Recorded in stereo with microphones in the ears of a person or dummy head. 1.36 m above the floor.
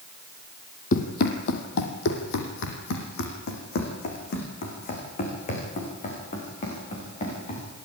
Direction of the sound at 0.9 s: 55° left (ahead or behind).